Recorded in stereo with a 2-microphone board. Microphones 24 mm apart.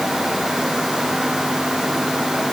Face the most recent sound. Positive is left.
No sound to turn to.